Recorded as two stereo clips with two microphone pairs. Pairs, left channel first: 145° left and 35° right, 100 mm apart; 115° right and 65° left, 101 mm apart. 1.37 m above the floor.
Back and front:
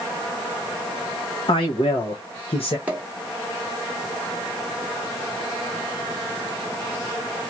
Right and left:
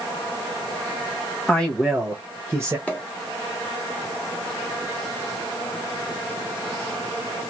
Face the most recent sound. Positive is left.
turn(degrees=-75)